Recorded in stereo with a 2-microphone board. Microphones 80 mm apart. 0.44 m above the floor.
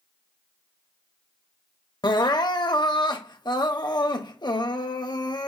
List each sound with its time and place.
2.0 s crying: 60° left (ahead or behind), 0.5 m